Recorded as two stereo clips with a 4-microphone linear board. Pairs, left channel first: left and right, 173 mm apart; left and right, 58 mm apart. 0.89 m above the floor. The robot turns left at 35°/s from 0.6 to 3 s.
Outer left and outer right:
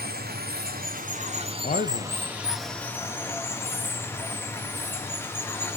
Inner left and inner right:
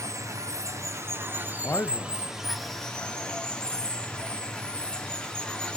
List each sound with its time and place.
0.0 s running water: 110° right, 0.7 m; by 5.8 s 165° left, 0.7 m
1.6 s a man speaking: 45° left (ahead or behind), 0.6 m; by 2.2 s 60° left (ahead or behind), 0.6 m